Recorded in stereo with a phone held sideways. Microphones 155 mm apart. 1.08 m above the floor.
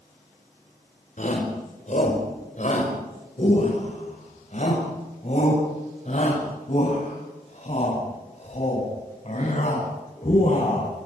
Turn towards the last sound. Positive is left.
turn(degrees=45)  # may be behind; listen again after turning